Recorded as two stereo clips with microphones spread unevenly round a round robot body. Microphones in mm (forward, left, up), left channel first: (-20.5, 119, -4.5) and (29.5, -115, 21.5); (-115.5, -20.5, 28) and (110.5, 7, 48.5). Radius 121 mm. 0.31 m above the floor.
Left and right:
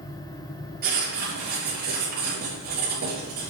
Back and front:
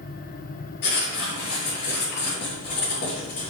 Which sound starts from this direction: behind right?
Writing, at 0.8 s.